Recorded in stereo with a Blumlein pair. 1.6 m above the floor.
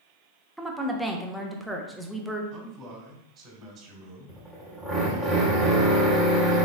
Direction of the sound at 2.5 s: 30° right.